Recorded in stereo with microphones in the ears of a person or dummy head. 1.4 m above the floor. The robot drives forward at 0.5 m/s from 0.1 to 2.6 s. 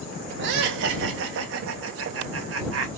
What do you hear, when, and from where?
0.4 s laughter: 60° right (ahead or behind), 3 m; by 2.9 s 80° right, 2.5 m